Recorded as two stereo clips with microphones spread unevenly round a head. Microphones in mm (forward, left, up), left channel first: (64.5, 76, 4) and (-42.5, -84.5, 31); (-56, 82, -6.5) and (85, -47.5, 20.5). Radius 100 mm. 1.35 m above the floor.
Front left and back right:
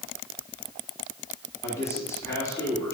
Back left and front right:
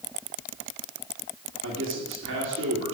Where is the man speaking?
20° right, 3 m.